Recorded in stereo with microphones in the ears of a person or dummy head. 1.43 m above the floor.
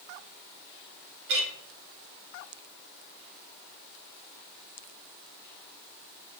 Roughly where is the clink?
Right.